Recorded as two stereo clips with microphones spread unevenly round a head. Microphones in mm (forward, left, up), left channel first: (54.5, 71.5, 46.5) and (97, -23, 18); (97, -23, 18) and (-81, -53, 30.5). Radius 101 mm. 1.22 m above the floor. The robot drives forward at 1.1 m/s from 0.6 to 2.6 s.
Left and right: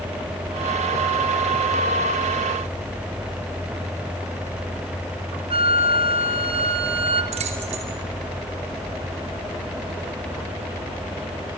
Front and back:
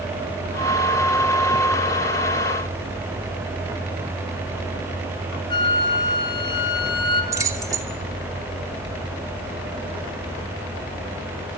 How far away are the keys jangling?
About 2.5 m.